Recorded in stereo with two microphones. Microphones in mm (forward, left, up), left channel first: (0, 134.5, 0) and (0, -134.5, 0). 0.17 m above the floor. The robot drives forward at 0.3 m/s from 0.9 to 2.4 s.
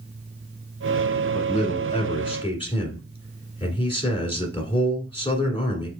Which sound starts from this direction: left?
A man speaking, at 1.3 s.